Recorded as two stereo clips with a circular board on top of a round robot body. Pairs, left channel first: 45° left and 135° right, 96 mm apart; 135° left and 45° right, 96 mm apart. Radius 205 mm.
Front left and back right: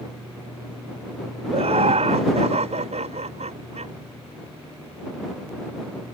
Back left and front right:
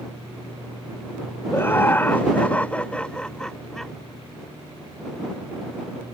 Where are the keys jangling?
No keys jangling in this recording.